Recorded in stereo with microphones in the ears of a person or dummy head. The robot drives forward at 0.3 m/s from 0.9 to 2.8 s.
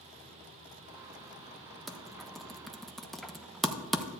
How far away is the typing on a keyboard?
About 0.8 m.